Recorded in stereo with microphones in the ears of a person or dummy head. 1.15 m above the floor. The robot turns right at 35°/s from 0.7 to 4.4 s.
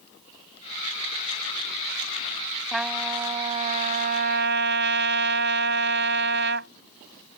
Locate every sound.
2.7 s a trumpet: straight behind; by 6.7 s 125° right